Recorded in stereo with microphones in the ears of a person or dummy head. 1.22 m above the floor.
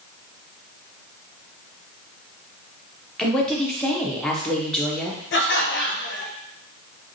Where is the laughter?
55° left (ahead or behind), 0.8 m.